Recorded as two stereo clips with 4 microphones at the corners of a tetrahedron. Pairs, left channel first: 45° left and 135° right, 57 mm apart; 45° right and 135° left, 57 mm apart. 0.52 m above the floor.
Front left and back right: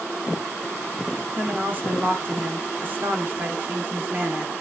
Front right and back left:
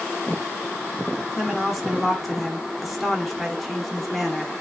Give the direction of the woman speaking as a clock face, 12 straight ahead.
4 o'clock.